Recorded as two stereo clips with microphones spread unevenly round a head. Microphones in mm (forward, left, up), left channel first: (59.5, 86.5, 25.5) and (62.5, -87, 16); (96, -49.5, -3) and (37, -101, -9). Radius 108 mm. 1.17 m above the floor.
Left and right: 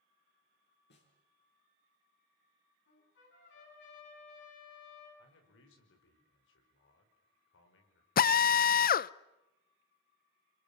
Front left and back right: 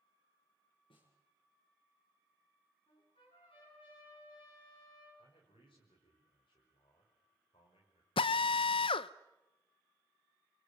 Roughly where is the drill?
Ahead left.